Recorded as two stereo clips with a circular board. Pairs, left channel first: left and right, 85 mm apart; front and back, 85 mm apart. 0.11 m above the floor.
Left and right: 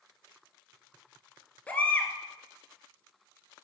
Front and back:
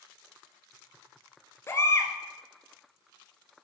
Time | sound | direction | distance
1.7 | a baby crying | 30° left | 1.1 m